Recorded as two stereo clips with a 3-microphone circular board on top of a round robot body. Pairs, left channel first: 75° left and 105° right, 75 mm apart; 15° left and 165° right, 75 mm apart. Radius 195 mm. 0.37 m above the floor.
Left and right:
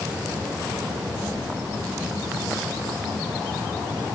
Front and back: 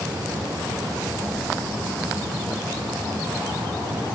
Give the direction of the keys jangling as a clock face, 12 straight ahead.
8 o'clock.